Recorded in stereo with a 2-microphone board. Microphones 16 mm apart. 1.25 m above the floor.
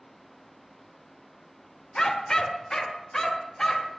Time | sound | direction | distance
1.9 | a dog barking | 45° left (ahead or behind) | 1.6 m